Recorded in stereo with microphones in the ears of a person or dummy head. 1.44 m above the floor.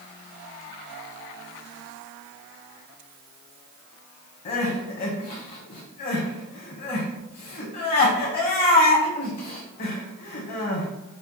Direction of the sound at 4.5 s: 40° left (ahead or behind).